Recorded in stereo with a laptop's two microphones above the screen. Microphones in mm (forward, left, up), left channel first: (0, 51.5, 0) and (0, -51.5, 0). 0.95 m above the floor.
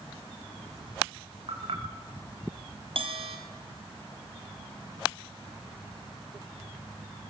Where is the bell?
60° right (ahead or behind), 3.5 m.